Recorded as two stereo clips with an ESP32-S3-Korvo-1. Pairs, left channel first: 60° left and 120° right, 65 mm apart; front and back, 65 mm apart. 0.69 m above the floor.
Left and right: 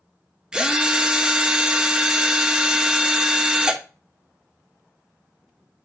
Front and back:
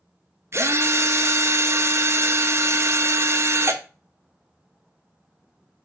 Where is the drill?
170° left, 0.9 m.